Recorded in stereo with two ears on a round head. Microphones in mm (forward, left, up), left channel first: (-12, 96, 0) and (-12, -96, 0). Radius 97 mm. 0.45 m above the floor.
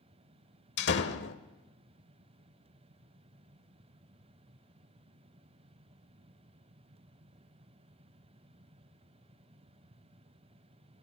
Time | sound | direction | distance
0.8 | a door slam | 50° left (ahead or behind) | 1.3 m